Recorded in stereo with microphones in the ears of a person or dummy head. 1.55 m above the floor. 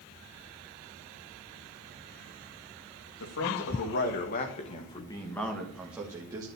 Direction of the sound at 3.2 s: 65° left (ahead or behind).